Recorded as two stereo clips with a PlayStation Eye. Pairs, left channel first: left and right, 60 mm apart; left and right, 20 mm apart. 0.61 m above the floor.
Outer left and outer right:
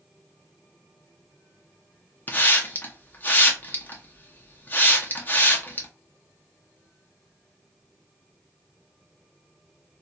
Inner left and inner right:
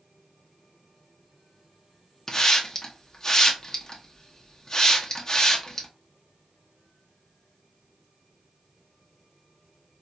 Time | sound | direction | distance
2.3 | a hiss | 30° left (ahead or behind) | 0.7 m